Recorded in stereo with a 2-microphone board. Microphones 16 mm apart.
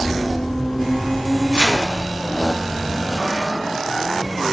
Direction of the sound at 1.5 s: 70° right (ahead or behind).